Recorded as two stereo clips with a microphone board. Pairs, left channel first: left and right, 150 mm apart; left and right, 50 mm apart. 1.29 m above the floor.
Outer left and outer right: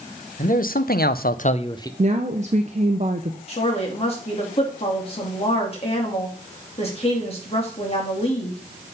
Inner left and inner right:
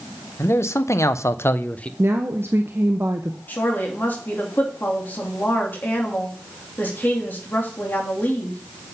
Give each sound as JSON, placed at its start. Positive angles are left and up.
{"t": 0.4, "sound": "a man speaking", "side_deg": 60, "distance_m": 0.9}
{"t": 2.0, "sound": "a woman speaking", "side_deg": -50, "distance_m": 0.7}
{"t": 3.5, "sound": "a woman speaking", "side_deg": 40, "distance_m": 2.5}